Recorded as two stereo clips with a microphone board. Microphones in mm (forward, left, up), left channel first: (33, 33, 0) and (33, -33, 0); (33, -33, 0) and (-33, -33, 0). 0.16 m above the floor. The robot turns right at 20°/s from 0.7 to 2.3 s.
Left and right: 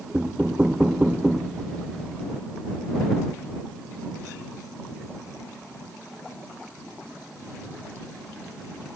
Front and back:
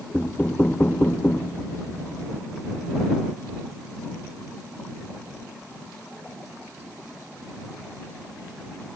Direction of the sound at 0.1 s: 35° right.